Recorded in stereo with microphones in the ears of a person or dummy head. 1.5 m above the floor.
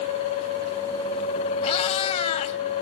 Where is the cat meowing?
30° left (ahead or behind), 1.5 m.